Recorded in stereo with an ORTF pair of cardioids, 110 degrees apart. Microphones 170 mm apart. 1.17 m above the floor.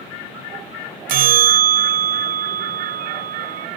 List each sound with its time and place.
1.1 s a bell: 55° right